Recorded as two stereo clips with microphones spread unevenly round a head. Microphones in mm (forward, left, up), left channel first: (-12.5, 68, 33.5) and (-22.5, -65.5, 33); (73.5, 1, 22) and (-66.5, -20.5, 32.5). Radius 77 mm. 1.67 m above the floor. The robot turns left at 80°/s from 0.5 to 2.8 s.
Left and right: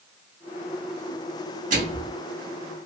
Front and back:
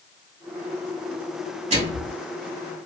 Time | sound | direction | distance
1.7 | a microwave | 125° right | 2.5 m